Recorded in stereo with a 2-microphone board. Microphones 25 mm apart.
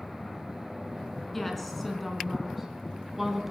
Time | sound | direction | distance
1.3 | a woman speaking | 10° left (ahead or behind) | 4 m